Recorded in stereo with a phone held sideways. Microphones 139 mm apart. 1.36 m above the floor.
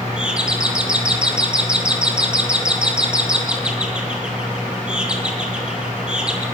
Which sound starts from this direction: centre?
A doorbell, at 0.2 s.